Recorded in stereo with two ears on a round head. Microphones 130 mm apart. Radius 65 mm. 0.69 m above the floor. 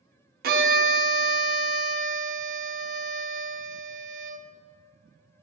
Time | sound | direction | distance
0.4 | a violin | 60° right (ahead or behind) | 1.0 m